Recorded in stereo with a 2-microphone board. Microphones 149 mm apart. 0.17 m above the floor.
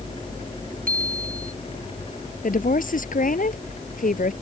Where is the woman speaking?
65° left (ahead or behind).